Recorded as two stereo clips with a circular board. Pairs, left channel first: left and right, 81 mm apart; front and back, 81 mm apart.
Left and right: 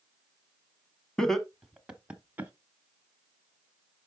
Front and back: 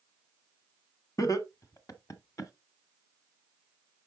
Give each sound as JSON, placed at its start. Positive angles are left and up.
{"t": 1.2, "sound": "laughter", "azimuth_deg": 10, "distance_m": 1.3}